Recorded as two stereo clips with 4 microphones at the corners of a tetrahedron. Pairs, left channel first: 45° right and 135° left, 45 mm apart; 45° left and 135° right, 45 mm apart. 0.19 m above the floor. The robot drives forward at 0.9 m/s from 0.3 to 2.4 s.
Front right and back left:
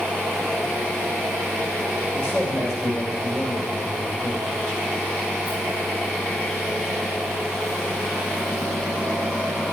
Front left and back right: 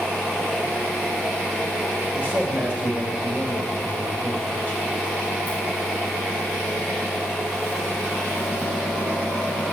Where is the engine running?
120° left, 5 m; by 9.7 s 135° left, 6 m.